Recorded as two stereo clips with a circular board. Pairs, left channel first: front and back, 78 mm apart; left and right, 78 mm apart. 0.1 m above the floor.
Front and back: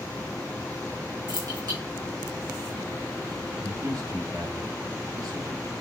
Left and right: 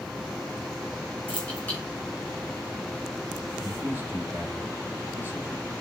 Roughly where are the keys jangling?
Behind.